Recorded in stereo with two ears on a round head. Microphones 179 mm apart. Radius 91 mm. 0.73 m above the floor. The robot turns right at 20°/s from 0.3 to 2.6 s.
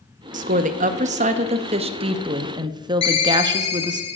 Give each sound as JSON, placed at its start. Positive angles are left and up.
{"t": 0.3, "sound": "a woman speaking", "azimuth_deg": -80, "distance_m": 0.5}
{"t": 3.0, "sound": "a ringtone", "side_deg": 30, "distance_m": 1.6}